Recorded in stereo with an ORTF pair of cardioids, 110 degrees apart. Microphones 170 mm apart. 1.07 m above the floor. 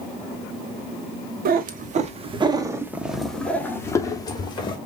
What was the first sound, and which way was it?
A cat meowing, 60° right.